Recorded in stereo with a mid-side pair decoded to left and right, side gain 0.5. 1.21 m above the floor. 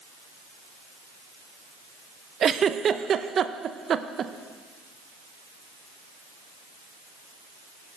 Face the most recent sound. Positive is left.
turn(degrees=-45)